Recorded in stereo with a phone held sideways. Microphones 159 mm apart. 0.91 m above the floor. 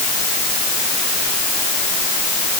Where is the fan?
No fan in this recording.